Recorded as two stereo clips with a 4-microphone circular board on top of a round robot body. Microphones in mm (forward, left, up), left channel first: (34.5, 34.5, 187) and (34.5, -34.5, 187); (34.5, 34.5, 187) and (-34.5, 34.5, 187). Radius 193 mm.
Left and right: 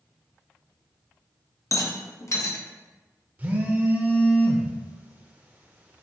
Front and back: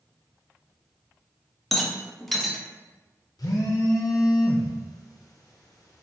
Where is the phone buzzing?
25° right, 0.7 m.